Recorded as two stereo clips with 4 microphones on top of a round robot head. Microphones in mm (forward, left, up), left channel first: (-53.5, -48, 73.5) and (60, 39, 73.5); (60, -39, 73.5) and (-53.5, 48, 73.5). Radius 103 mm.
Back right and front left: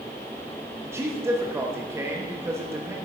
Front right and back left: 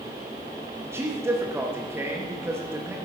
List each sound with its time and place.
0.8 s a man speaking: 90° left, 1.1 m